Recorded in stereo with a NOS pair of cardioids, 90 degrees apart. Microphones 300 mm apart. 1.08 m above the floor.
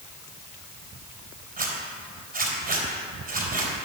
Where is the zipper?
25° right, 4.5 m.